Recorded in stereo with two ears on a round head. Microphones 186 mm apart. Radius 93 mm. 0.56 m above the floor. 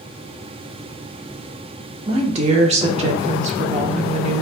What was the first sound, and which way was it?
A woman speaking, 35° right (ahead or behind).